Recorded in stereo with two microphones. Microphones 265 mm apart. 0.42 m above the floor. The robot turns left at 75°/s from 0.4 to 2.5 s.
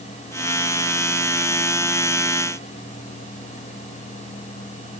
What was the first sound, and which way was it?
Only background noise.